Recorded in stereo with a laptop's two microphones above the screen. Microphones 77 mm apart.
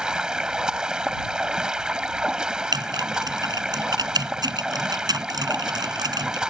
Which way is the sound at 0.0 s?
10° right (ahead or behind).